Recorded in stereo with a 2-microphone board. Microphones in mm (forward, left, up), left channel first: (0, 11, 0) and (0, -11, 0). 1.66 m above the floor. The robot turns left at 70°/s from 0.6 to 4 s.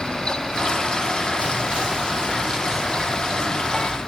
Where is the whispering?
65° right, 1.4 m; by 4.0 s 115° left, 1.4 m.